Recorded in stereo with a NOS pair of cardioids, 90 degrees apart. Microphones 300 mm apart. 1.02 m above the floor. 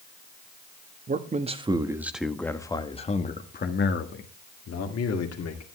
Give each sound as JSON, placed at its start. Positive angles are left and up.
{"t": 1.1, "sound": "a man speaking", "azimuth_deg": -30, "distance_m": 1.4}